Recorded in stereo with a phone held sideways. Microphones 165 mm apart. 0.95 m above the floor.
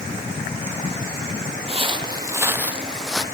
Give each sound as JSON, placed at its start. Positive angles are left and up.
{"t": 1.7, "sound": "footsteps", "side_deg": -35, "distance_m": 1.2}